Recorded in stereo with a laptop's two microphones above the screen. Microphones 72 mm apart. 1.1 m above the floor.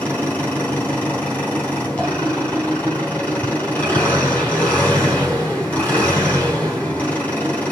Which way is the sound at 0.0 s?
25° left (ahead or behind).